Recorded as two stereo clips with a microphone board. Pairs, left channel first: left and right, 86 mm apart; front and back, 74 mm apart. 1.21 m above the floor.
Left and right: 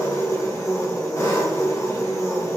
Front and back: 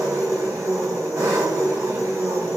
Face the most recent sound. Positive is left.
turn(degrees=135)